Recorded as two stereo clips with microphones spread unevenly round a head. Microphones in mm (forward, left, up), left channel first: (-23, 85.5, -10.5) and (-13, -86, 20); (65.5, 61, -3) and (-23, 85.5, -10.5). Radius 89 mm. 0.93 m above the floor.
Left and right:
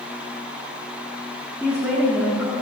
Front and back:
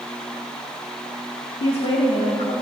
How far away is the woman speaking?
About 2 m.